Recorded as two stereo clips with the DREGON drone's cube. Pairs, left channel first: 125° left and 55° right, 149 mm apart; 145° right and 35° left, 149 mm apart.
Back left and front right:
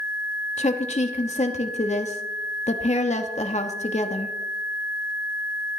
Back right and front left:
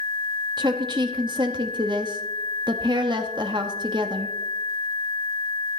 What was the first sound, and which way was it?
A woman speaking, 90° left.